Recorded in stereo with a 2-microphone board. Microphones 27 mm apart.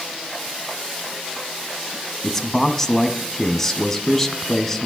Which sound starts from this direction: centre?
A man speaking, at 2.2 s.